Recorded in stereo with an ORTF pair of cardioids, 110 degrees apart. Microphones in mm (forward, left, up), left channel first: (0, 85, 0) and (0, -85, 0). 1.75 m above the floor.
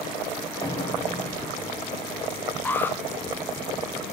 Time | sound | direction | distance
0.6 | an explosion | 25° left | 1.9 m
2.6 | an alarm | 10° left | 0.9 m